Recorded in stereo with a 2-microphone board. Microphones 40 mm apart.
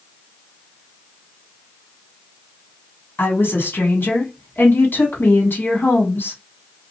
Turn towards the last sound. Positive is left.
turn(degrees=65)  # may be behind; listen again after turning